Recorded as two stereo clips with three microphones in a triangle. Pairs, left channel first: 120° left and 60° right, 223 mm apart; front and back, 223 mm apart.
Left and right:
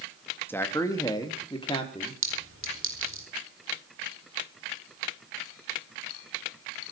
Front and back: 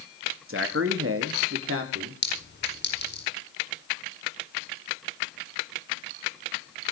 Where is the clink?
40° right, 4.5 m.